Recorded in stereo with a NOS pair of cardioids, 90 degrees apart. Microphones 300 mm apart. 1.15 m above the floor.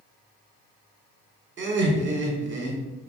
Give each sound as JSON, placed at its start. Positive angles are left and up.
{"t": 1.6, "sound": "laughter", "azimuth_deg": -40, "distance_m": 1.3}